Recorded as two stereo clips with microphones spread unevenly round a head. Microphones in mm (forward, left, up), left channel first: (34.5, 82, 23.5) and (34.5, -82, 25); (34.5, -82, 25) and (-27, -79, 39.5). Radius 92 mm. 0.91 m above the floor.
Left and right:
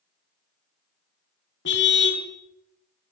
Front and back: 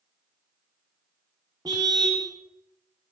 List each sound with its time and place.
1.6 s a car horn: 120° left, 3.5 m